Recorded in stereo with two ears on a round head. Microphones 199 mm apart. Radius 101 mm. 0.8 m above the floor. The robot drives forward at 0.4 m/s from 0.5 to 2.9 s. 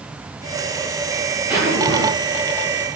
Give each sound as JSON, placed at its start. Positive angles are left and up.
{"t": 1.5, "sound": "a zipper", "side_deg": -10, "distance_m": 7.5}